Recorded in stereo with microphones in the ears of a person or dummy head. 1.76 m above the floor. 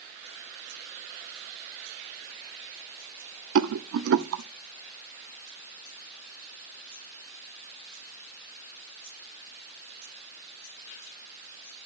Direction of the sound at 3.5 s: 85° right.